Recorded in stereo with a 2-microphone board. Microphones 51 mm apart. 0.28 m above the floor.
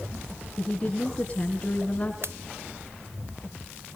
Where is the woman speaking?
25° left (ahead or behind), 3 m.